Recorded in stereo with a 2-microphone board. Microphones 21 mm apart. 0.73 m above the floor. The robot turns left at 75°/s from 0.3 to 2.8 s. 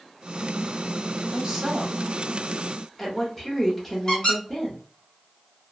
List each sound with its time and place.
1.3 s a woman speaking: 15° right (ahead or behind), 0.9 m; by 4.8 s centre (ahead or behind), 0.9 m
4.1 s a squeak: 30° left (ahead or behind), 1.3 m